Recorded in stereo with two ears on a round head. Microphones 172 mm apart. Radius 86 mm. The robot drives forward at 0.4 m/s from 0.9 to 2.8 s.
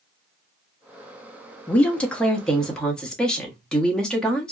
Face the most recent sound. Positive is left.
turn(degrees=5)  # may be behind; listen again after turning